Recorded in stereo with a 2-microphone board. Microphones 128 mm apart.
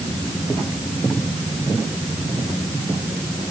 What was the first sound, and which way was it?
Only background noise.